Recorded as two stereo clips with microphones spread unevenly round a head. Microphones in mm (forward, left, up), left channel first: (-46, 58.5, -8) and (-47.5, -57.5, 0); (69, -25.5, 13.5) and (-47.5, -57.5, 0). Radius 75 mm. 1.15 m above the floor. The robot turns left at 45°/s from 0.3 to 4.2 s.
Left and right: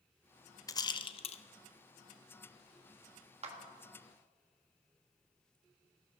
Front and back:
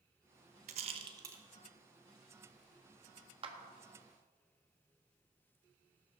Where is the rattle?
150° left, 0.8 m; by 1.4 s 120° left, 0.8 m.